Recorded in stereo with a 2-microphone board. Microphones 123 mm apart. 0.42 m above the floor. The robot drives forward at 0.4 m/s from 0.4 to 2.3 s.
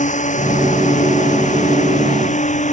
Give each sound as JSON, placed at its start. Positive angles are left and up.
{"t": 0.0, "sound": "a drone", "side_deg": 80}